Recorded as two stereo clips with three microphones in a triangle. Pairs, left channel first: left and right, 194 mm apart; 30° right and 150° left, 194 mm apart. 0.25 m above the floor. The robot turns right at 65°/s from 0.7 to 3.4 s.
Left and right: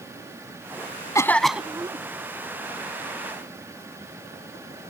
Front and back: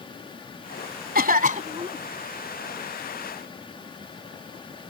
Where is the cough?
160° left; by 2.0 s 145° right.